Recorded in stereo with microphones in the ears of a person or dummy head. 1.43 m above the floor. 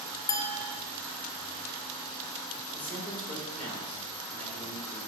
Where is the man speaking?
Centre (ahead or behind), 4.5 m.